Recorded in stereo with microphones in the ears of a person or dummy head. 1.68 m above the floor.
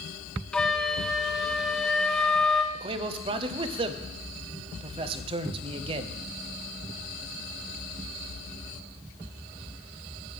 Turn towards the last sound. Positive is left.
turn(degrees=-30)  # may be behind; listen again after turning